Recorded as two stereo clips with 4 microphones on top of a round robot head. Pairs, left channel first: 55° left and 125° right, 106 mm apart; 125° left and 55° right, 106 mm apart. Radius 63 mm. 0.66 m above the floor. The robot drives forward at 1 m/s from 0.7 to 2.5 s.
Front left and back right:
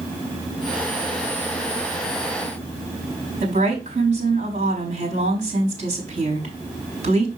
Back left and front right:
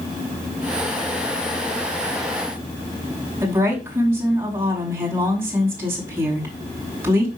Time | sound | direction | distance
3.4 | a woman speaking | 120° right | 4.5 m